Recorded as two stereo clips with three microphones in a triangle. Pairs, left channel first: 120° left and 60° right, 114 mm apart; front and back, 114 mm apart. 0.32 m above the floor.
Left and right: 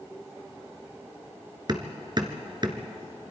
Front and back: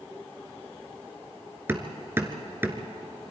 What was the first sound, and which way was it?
Hammering, 110° right.